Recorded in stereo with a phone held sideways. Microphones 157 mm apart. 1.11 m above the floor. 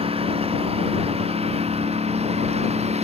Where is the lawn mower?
40° right (ahead or behind); by 3.0 s 45° right (ahead or behind).